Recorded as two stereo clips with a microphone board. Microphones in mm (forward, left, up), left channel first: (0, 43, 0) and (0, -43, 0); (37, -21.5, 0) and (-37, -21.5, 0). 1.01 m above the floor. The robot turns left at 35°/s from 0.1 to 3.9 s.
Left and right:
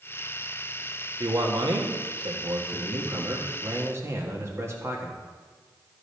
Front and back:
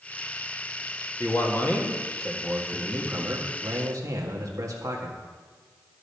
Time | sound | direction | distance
1.2 | a man speaking | 50° right | 1.6 m